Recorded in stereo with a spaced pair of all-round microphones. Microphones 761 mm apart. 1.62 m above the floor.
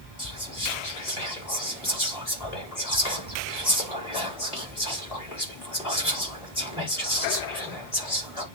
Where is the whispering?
50° left (ahead or behind), 4 m.